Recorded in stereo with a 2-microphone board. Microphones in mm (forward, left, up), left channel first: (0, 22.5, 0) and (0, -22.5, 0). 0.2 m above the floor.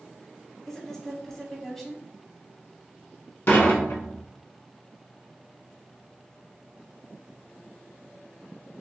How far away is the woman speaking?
About 1.1 m.